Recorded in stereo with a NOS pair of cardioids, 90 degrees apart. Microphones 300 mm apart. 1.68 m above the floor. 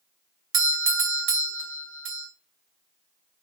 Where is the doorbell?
40° right, 0.6 m.